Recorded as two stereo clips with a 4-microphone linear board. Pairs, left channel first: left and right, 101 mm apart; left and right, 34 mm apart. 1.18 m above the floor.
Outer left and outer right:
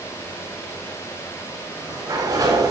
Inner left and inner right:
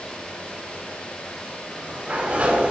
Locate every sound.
1.6 s a sliding door: 35° right (ahead or behind), 3.5 m